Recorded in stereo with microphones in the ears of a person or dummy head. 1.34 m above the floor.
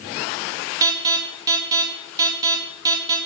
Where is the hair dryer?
No hair dryer in this recording.